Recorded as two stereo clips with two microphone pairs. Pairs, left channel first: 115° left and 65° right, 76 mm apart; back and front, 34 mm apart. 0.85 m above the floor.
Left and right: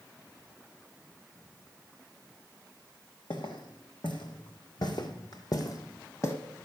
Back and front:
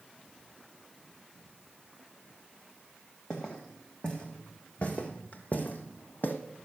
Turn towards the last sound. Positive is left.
turn(degrees=165)